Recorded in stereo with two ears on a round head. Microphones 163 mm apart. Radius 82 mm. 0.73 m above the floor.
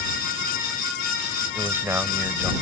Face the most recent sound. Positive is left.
turn(degrees=-10)  # may be behind; listen again after turning